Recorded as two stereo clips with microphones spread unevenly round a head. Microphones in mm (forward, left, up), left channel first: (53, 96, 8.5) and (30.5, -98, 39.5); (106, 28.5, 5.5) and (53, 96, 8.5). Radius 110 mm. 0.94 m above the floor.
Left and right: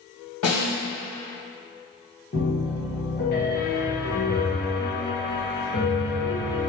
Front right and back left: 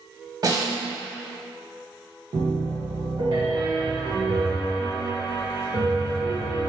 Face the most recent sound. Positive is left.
turn(degrees=105)